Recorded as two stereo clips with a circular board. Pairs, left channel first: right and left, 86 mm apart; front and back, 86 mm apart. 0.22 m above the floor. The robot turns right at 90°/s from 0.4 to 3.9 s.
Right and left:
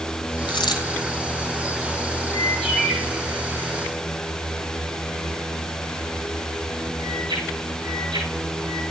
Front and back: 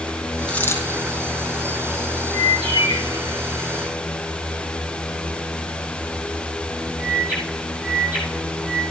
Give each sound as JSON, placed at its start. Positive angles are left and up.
{"t": 0.5, "sound": "a dropped coin", "azimuth_deg": -85, "distance_m": 3.5}
{"t": 2.3, "sound": "a bird", "azimuth_deg": -35, "distance_m": 6.0}